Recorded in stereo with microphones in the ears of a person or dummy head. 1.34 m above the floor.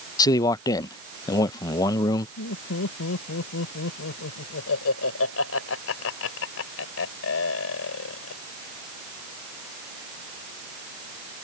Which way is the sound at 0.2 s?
20° left (ahead or behind).